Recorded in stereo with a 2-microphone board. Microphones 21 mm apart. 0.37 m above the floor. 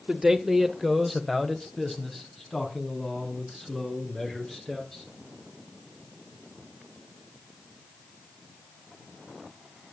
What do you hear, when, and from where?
0.1 s a man speaking: 30° right (ahead or behind), 1.4 m; by 5.0 s 25° left (ahead or behind), 7 m